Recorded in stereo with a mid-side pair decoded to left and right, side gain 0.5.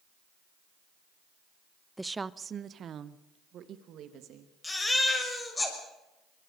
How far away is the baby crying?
About 6 m.